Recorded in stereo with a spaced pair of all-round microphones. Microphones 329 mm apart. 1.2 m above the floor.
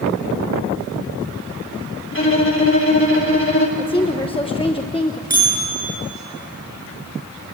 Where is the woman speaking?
15° left (ahead or behind), 1.1 m.